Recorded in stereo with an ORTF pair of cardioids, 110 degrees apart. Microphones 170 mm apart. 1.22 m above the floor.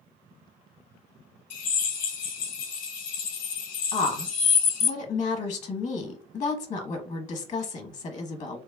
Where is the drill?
55° left, 0.8 m.